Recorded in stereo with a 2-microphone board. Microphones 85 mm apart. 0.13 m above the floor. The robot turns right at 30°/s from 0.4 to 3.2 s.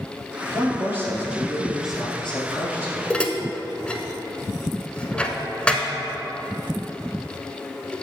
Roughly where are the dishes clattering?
Centre.